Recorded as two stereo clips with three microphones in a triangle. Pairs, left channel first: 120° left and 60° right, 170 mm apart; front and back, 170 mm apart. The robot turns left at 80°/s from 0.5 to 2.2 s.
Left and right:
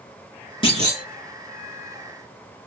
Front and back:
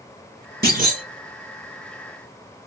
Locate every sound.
0.6 s a clunk: 175° left, 1.6 m; by 1.0 s 140° left, 1.6 m